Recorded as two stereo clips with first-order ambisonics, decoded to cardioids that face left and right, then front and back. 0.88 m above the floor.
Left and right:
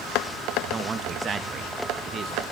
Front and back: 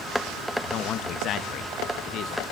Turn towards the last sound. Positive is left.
turn(degrees=-30)